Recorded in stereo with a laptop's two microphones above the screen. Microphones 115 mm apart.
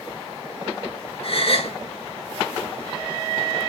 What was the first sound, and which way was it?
A gasp, 55° left (ahead or behind).